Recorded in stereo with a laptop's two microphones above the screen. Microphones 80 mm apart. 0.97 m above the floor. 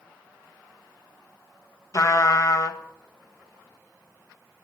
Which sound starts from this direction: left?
A trumpet, at 1.9 s.